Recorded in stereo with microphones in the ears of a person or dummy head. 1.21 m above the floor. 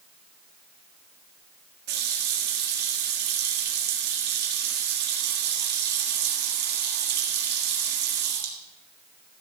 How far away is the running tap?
About 1.7 m.